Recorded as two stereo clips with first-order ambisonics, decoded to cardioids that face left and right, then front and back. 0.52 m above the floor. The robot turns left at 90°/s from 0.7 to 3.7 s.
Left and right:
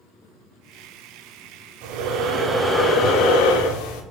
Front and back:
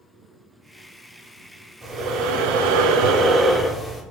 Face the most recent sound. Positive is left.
turn(degrees=85)